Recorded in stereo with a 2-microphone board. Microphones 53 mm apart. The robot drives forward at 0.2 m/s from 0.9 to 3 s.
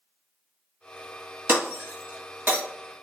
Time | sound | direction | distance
1.5 | breaking glass | 40° right (ahead or behind) | 2.5 m